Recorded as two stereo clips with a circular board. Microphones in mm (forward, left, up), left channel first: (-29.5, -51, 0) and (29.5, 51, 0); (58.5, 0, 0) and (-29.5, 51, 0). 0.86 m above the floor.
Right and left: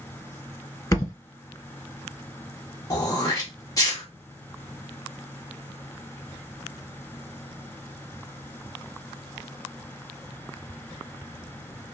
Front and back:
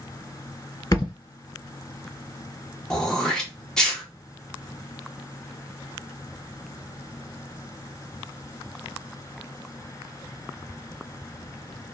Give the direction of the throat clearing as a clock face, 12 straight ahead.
4 o'clock.